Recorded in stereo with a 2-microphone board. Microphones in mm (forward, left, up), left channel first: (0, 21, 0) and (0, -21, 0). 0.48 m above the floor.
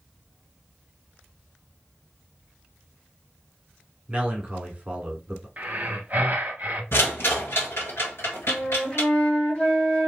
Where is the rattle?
70° left (ahead or behind), 1.5 m.